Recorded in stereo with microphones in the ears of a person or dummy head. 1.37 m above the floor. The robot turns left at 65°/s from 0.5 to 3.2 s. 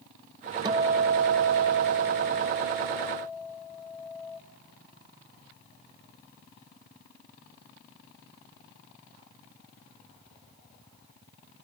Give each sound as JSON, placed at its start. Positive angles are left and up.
{"t": 0.7, "sound": "a guitar", "azimuth_deg": -25, "distance_m": 0.5}